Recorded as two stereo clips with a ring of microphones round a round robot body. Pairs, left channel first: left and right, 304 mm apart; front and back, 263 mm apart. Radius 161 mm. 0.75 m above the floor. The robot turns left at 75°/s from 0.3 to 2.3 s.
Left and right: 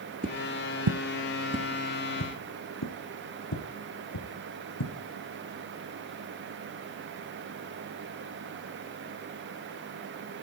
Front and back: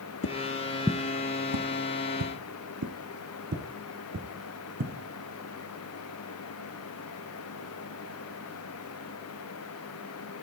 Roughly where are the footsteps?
Ahead right.